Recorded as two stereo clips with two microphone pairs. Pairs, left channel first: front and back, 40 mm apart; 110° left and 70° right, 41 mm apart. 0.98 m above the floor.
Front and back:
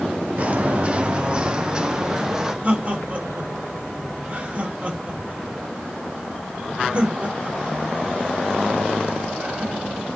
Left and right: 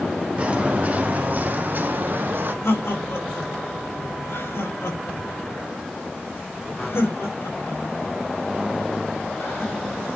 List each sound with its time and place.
0.4 s footsteps: 130° right, 2.5 m; by 2.5 s 105° right, 3 m
2.6 s laughter: 120° left, 6.5 m